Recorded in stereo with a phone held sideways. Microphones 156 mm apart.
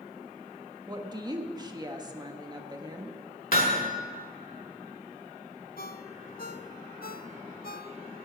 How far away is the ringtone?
About 0.6 m.